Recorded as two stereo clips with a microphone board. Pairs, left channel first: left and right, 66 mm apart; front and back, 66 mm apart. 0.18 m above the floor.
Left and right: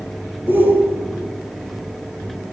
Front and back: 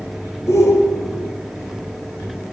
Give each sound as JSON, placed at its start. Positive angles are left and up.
{"t": 0.5, "sound": "a shout", "azimuth_deg": -30, "distance_m": 2.5}